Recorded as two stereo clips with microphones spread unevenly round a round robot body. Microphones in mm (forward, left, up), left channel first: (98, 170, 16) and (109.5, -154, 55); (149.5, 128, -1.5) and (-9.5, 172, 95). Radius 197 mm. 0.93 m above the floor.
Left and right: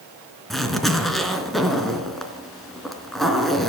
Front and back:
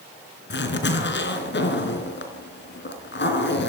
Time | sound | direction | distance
0.5 | a zipper | straight ahead | 4 m